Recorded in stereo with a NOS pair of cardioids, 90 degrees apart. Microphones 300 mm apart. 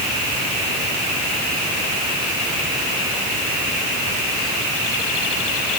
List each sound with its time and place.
Only background noise.